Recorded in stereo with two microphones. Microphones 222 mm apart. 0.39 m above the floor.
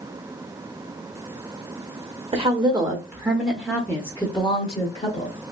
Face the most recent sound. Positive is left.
turn(degrees=35)  # may be behind; listen again after turning